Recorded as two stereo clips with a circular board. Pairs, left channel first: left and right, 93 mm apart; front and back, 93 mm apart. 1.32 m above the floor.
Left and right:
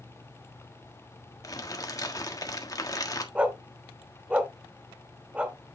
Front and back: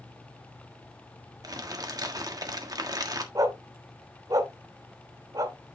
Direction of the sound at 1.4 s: 135° left.